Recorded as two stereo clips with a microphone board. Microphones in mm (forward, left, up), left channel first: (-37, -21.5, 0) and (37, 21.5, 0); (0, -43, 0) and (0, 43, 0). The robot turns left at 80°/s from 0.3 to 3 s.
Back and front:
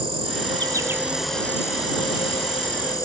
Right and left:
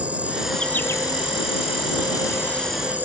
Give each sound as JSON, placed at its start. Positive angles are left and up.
{"t": 0.0, "sound": "an insect", "azimuth_deg": 15}